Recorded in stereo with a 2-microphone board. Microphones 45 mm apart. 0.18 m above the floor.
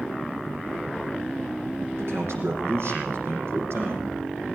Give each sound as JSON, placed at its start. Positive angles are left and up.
{"t": 2.0, "sound": "a man speaking", "side_deg": -70, "distance_m": 7.5}